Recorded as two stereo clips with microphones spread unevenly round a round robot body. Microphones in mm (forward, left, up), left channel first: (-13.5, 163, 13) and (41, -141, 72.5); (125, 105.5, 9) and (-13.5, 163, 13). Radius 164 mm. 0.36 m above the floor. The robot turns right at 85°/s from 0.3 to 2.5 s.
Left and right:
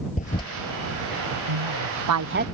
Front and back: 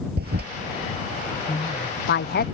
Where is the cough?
I don't hear a cough.